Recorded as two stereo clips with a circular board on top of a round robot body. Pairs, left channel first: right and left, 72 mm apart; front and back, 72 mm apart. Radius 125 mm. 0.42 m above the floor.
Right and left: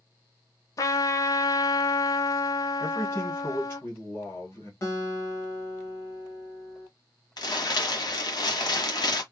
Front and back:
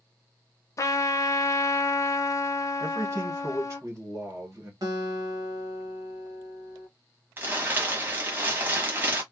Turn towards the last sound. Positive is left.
turn(degrees=-115)